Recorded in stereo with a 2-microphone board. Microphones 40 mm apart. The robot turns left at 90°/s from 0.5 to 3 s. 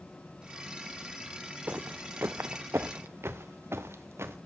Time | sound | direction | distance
1.7 | footsteps | 45° right (ahead or behind) | 0.6 m